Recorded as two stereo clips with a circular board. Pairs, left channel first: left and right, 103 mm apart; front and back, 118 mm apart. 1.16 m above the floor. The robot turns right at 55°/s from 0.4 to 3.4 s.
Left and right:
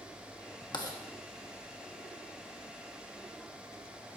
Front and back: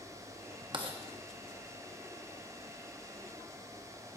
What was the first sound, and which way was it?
Writing, 130° left.